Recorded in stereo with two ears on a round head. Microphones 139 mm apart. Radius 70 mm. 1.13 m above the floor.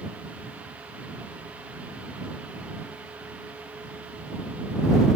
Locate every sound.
Only background noise.